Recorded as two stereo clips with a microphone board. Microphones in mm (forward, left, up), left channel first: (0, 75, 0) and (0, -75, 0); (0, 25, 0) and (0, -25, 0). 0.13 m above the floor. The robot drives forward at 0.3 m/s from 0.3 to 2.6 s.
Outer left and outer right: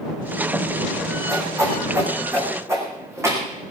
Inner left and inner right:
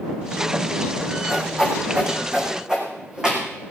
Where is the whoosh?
20° right (ahead or behind), 4 m; by 3.4 s 15° right (ahead or behind), 4 m.